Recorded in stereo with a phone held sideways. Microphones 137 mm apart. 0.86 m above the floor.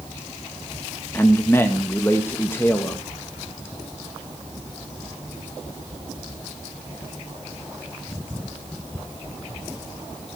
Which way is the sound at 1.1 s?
20° left (ahead or behind).